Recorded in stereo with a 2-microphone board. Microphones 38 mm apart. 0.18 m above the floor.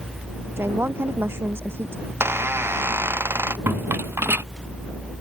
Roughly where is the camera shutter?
I don't hear a camera shutter.